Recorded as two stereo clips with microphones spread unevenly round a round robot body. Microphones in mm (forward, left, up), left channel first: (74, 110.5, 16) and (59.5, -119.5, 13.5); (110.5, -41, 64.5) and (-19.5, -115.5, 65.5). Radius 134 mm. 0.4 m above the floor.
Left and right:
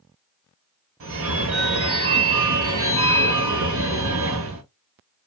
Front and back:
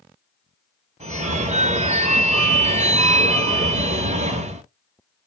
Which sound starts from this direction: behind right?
A phone ringing, at 1.0 s.